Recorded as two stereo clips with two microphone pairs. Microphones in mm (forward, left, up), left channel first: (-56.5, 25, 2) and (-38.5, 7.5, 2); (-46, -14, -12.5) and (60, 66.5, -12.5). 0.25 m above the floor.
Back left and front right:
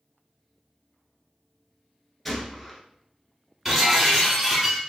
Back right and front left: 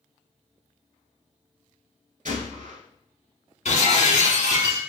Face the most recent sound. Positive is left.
turn(degrees=-130)